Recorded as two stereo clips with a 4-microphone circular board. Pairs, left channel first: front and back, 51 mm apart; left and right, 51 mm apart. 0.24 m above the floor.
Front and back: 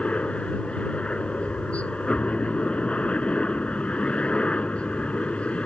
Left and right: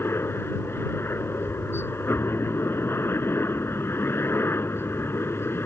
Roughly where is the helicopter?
Ahead left.